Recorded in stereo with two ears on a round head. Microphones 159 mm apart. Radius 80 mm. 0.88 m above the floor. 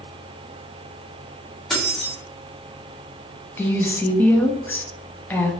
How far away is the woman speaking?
About 0.5 m.